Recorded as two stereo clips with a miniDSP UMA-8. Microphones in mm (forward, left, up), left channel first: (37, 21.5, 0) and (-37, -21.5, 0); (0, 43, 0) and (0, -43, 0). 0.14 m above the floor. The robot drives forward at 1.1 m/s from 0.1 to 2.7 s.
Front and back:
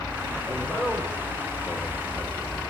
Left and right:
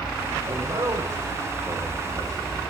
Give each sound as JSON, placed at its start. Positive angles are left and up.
{"t": 0.5, "sound": "a man speaking", "azimuth_deg": -35, "distance_m": 9.0}